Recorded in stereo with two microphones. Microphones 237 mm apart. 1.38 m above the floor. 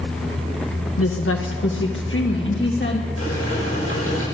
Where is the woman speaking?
70° left (ahead or behind), 0.9 m; by 3.1 s 50° left (ahead or behind), 2.5 m.